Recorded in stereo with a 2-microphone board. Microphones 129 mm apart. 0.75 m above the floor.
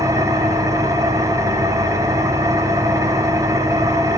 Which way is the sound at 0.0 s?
25° right (ahead or behind).